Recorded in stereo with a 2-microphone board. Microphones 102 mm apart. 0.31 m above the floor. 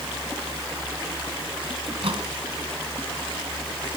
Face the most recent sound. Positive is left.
turn(degrees=-65)  # may be behind; listen again after turning